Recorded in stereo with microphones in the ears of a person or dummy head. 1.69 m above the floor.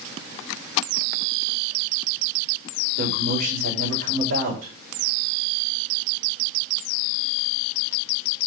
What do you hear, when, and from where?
3.0 s a man speaking: 75° right (ahead or behind), 5 m